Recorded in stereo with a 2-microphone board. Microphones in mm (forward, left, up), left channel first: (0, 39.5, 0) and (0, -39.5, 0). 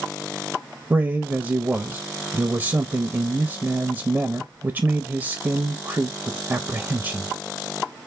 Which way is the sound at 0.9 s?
30° right (ahead or behind).